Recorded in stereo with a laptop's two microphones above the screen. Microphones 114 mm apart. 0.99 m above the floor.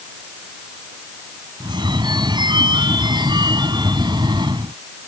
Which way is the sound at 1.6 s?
40° right (ahead or behind).